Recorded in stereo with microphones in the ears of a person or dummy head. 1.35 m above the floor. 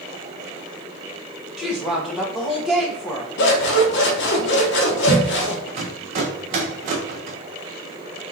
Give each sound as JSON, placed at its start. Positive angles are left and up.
{"t": 1.6, "sound": "a woman speaking", "side_deg": 0, "distance_m": 1.2}
{"t": 3.4, "sound": "scissors", "side_deg": 65, "distance_m": 1.0}
{"t": 5.7, "sound": "a rattle", "side_deg": -30, "distance_m": 0.5}